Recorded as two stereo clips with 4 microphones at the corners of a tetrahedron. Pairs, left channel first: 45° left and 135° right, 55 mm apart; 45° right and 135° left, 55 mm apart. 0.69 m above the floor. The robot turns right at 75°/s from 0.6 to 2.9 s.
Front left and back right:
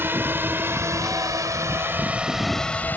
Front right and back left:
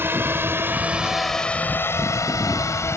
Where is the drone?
Straight behind; by 3.0 s 15° right.